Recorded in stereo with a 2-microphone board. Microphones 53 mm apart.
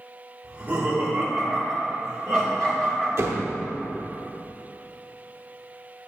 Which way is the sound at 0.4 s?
35° right (ahead or behind).